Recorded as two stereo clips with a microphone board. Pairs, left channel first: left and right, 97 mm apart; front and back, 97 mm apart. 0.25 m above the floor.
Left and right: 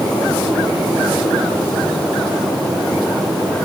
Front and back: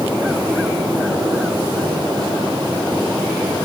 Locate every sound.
Only background noise.